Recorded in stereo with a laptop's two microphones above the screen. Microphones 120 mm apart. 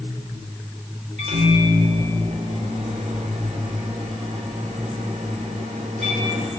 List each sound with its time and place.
1.2 s a microwave: 75° right (ahead or behind), 3 m